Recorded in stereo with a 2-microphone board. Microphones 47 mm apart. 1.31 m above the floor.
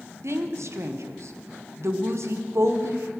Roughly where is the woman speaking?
Right.